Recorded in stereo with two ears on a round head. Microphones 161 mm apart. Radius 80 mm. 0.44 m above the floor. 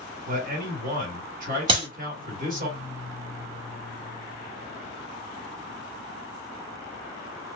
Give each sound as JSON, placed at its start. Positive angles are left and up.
{"t": 0.3, "sound": "a man speaking", "side_deg": -45, "distance_m": 1.6}
{"t": 1.7, "sound": "a clap", "side_deg": -30, "distance_m": 1.2}